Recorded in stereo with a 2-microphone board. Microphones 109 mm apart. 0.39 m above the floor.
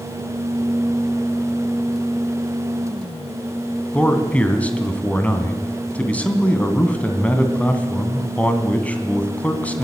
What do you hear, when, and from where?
3.9 s a man speaking: 15° left (ahead or behind), 3 m